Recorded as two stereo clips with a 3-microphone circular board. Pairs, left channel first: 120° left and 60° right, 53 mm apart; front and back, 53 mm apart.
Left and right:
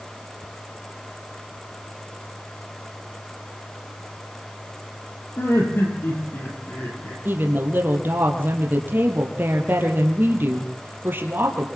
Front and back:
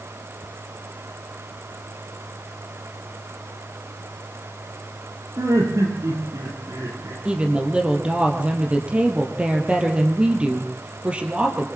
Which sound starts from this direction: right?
A woman speaking, at 7.2 s.